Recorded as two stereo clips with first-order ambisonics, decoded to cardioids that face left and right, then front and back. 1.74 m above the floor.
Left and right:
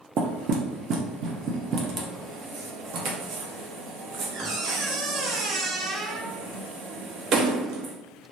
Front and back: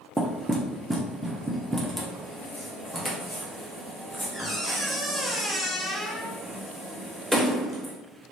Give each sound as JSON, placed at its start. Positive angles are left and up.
{"t": 0.2, "sound": "knocking", "azimuth_deg": -90, "distance_m": 0.5}